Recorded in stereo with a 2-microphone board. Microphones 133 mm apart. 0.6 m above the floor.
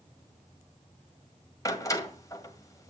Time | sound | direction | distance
1.6 | a door slam | 25° left (ahead or behind) | 1.9 m